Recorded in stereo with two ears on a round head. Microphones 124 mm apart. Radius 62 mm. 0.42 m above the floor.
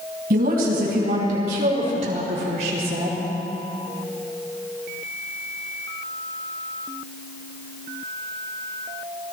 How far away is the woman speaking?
About 3.5 m.